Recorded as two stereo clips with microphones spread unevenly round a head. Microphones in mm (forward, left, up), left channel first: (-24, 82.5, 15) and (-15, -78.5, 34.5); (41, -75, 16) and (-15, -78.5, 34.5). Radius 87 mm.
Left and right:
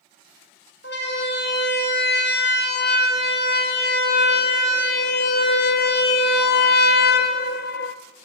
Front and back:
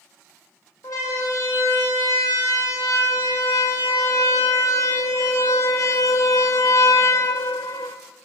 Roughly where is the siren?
Ahead left.